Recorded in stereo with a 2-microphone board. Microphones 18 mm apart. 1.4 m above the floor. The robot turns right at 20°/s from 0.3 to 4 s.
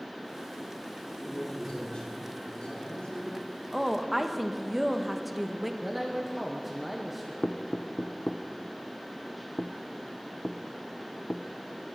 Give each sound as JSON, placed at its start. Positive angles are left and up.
{"t": 1.1, "sound": "a man speaking", "azimuth_deg": 40, "distance_m": 5.5}
{"t": 3.7, "sound": "a woman speaking", "side_deg": -5, "distance_m": 1.1}
{"t": 5.8, "sound": "a man speaking", "side_deg": -5, "distance_m": 1.2}
{"t": 7.4, "sound": "knocking", "side_deg": 65, "distance_m": 0.6}